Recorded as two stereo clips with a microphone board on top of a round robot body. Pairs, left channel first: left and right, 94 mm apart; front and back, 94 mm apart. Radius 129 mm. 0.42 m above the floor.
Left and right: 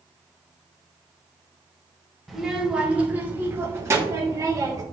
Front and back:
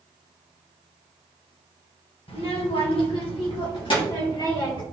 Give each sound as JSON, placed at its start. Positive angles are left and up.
{"t": 2.3, "sound": "a child speaking", "azimuth_deg": 0, "distance_m": 1.9}